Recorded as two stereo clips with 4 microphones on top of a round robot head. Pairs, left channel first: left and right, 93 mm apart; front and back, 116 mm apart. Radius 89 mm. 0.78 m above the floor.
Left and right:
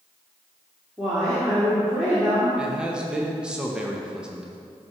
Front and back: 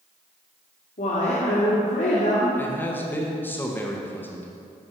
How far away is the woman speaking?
About 1.9 m.